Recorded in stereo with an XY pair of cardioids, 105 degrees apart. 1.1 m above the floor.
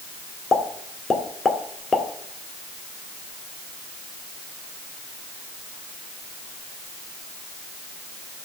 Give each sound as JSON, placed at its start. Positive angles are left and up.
{"t": 0.5, "sound": "a pop", "azimuth_deg": 35, "distance_m": 1.7}